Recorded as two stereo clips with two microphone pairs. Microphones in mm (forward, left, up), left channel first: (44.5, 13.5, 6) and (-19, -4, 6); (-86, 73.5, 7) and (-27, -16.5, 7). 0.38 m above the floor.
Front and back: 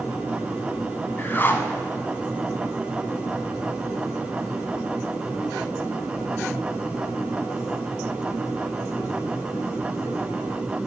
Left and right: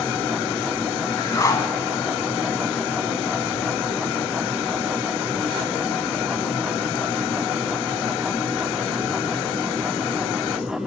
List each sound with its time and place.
1.2 s a whoosh: 70° left, 0.9 m